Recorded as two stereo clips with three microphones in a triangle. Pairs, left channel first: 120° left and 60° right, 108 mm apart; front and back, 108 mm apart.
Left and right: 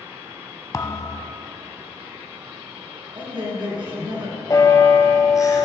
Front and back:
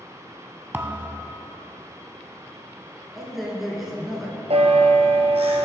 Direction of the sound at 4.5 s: 175° left.